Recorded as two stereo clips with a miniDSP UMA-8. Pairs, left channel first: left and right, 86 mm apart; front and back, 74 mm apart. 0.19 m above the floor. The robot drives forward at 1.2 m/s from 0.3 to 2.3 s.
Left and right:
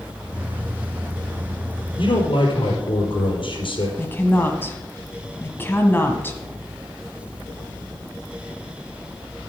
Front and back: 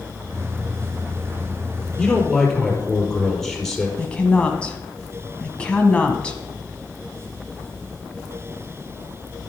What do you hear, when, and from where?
2.0 s a man speaking: 80° left, 4.5 m; by 3.9 s 90° left, 4.5 m
4.0 s a woman speaking: 60° left, 1.5 m